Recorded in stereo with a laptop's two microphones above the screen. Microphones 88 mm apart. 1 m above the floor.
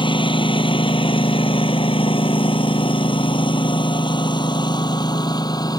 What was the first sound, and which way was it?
A lawn mower, 65° left (ahead or behind).